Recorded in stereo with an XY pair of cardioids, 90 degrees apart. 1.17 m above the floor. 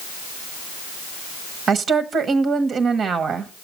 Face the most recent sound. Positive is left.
turn(degrees=-65)